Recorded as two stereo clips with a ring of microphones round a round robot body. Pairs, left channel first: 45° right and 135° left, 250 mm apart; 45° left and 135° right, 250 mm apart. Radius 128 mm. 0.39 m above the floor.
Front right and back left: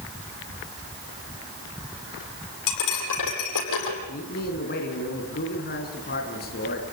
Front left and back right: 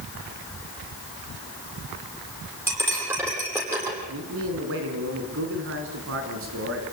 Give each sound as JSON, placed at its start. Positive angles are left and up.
{"t": 2.7, "sound": "cutlery clinking", "azimuth_deg": -55, "distance_m": 9.5}
{"t": 4.1, "sound": "a man speaking", "azimuth_deg": -95, "distance_m": 4.0}